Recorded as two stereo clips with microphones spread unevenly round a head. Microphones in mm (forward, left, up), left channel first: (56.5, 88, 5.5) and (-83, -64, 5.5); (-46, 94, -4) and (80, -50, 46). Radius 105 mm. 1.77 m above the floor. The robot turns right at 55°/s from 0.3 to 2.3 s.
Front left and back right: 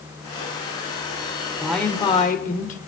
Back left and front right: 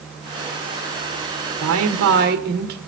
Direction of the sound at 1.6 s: 45° right.